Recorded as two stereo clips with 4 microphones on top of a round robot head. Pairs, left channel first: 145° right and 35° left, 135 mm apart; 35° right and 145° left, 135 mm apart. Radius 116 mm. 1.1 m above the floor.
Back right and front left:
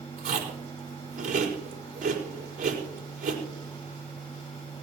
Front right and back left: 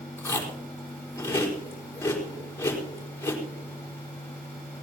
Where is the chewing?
35° left, 5 m.